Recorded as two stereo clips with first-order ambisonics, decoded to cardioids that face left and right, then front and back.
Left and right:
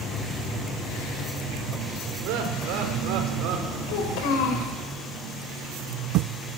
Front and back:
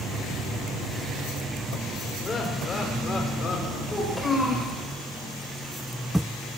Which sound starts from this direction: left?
A child speaking, at 3.9 s.